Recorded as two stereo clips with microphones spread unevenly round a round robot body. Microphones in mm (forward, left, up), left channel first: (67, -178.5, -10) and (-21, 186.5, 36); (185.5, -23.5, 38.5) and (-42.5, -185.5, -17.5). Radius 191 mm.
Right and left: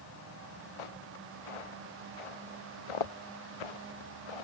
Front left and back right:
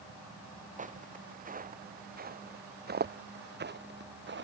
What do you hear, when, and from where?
0.8 s footsteps: 80° right; by 4.4 s 95° right